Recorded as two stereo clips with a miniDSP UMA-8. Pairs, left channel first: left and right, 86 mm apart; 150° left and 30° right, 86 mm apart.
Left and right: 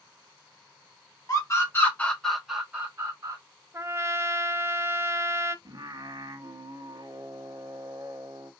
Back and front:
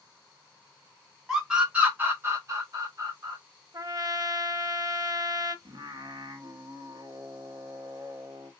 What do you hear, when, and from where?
1.3 s a scream: 50° left, 1.3 m; by 3.4 s 50° right, 1.3 m
3.7 s a trumpet: 40° right, 0.5 m
5.7 s singing: 55° right, 0.6 m